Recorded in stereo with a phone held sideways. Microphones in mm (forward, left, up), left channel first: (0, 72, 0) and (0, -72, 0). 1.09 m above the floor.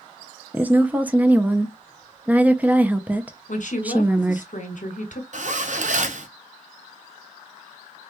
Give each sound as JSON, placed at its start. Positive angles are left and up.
{"t": 0.5, "sound": "a woman speaking", "side_deg": -10, "distance_m": 0.5}
{"t": 3.5, "sound": "a woman speaking", "side_deg": 60, "distance_m": 1.3}
{"t": 5.3, "sound": "a zipper", "side_deg": -60, "distance_m": 0.7}